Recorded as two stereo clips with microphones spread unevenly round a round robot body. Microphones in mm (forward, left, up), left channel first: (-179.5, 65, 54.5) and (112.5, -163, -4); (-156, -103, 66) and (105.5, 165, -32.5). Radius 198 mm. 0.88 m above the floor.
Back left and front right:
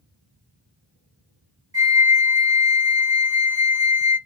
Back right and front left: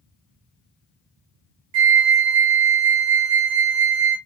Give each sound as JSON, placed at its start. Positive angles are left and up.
{"t": 1.7, "sound": "a flute", "azimuth_deg": 40, "distance_m": 0.9}